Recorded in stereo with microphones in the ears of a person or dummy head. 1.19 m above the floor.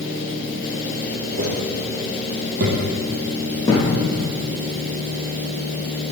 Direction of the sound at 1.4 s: 45° right (ahead or behind).